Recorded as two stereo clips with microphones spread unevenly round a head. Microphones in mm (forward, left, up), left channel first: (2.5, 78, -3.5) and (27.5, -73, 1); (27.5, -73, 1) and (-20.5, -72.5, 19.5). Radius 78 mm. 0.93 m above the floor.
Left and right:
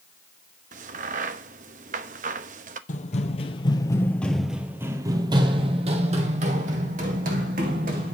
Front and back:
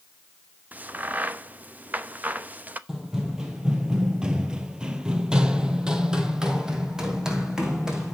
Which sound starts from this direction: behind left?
Running footsteps, at 2.9 s.